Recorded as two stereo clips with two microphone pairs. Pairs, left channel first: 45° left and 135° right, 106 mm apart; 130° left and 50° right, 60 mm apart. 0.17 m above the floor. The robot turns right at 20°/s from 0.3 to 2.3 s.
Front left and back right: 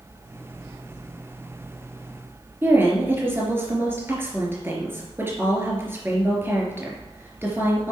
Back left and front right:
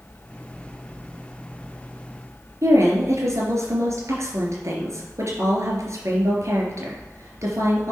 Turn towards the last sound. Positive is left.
turn(degrees=-70)